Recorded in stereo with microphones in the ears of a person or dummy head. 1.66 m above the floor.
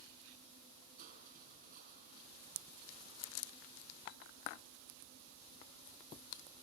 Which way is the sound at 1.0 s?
50° right (ahead or behind).